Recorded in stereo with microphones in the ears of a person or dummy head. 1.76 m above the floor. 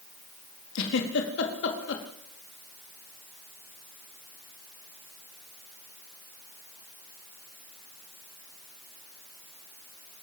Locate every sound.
0.8 s a giggle: 70° left (ahead or behind), 4 m